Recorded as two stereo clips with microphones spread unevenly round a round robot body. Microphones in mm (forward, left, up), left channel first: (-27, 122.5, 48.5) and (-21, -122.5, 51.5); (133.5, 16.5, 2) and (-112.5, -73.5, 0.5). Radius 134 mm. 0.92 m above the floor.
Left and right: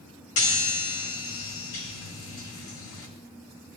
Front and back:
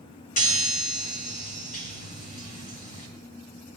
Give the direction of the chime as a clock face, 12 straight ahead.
9 o'clock.